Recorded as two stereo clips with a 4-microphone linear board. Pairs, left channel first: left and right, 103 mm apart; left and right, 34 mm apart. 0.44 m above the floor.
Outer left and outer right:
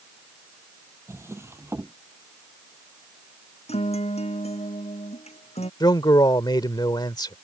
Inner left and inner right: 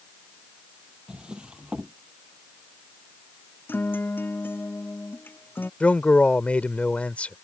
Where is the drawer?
25° right (ahead or behind).